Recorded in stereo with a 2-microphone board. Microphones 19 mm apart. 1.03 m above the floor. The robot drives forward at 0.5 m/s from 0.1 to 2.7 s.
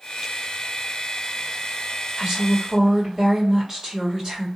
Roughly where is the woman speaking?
Right.